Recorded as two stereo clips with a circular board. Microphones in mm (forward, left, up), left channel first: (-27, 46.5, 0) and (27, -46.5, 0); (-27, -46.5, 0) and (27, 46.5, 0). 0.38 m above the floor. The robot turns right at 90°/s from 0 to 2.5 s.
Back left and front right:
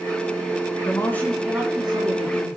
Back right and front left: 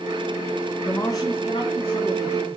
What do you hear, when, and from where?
0.8 s a man speaking: 165° left, 2.5 m; by 2.6 s 45° right, 2.5 m